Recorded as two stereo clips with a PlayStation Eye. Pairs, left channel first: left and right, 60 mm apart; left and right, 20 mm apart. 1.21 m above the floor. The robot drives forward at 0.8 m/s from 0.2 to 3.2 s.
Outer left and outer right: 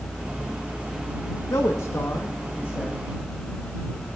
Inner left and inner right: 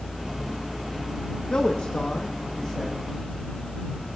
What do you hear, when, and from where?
1.5 s a man speaking: 60° left (ahead or behind), 1.4 m; by 3.0 s 30° left (ahead or behind), 2 m